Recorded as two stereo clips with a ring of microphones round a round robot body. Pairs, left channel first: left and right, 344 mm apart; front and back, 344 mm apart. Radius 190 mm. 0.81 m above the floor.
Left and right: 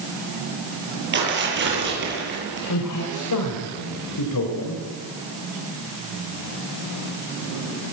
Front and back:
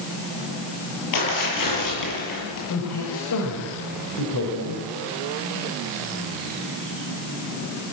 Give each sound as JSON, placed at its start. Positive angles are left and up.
{"t": 1.1, "sound": "tearing paper", "azimuth_deg": -30, "distance_m": 9.0}
{"t": 2.7, "sound": "a man speaking", "azimuth_deg": 55, "distance_m": 3.5}